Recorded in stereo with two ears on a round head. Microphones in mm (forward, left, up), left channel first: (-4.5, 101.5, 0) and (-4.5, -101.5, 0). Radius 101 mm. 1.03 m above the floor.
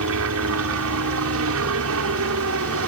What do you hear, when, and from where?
0.0 s a helicopter: 65° right (ahead or behind)